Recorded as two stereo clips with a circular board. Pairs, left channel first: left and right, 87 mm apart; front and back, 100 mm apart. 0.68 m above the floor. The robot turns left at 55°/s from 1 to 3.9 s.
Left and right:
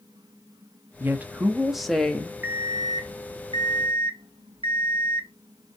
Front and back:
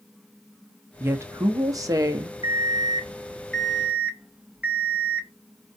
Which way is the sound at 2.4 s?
20° right.